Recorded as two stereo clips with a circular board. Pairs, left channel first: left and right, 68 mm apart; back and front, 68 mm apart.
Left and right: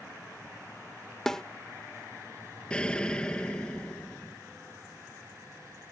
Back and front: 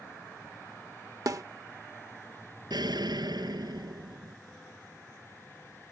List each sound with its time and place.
1.3 s a snare drum: 10° left
2.7 s an explosion: 15° left